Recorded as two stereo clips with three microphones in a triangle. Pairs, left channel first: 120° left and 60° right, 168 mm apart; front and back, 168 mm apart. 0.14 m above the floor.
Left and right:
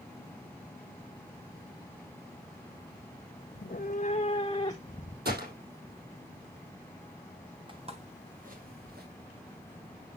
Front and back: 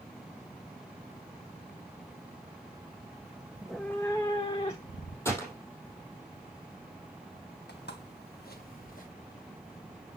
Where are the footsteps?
Straight ahead, 2.5 m; by 9.1 s 40° right, 3 m.